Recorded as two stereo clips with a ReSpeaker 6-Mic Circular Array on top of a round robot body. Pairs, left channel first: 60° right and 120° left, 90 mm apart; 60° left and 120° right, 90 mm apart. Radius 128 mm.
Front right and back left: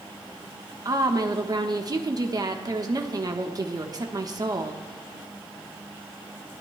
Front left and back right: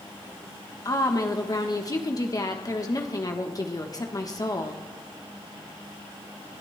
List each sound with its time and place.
0.8 s a woman speaking: 95° left, 1.2 m